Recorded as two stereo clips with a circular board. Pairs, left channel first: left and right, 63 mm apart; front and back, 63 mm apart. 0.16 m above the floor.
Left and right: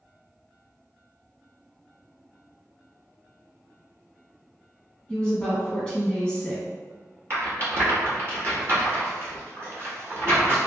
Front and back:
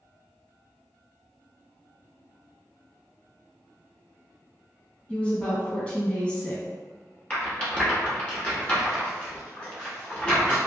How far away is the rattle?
About 1.0 m.